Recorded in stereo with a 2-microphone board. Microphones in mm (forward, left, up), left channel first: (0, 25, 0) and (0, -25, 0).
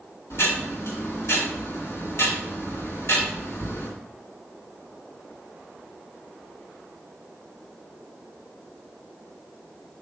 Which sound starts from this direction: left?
Ticking, at 0.3 s.